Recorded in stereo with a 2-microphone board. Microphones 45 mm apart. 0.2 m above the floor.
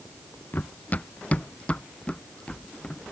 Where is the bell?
No bell in this recording.